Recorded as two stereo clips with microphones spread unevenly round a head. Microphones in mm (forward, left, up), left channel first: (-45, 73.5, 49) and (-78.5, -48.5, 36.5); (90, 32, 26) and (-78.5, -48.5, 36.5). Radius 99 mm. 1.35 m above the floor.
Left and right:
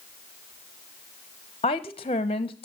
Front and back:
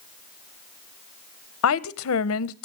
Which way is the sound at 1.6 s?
15° left.